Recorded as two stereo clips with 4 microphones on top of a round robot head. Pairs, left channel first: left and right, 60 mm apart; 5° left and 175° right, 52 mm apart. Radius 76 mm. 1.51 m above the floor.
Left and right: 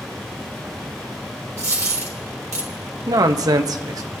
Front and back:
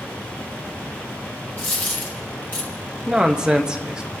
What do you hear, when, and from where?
1.6 s a dropped coin: 60° right, 1.1 m
3.1 s a man speaking: 100° right, 0.8 m